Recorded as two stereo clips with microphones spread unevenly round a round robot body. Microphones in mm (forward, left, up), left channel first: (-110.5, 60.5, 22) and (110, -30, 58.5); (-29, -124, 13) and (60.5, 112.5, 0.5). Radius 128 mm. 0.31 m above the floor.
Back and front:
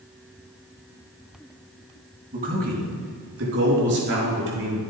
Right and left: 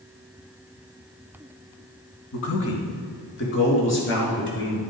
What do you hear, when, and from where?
2.3 s a man speaking: 85° right, 2.5 m; by 4.8 s 65° right, 5.5 m